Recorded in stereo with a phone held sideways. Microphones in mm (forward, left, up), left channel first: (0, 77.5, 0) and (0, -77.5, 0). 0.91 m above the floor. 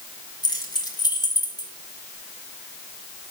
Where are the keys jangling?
25° left (ahead or behind), 3.5 m.